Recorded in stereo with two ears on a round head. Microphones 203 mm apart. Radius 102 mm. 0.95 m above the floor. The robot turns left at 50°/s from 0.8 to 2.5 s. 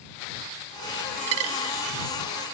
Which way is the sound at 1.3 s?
65° right (ahead or behind).